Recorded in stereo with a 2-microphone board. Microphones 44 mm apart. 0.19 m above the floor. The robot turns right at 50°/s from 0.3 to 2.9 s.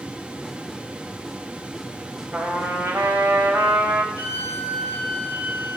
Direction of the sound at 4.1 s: 50° right (ahead or behind).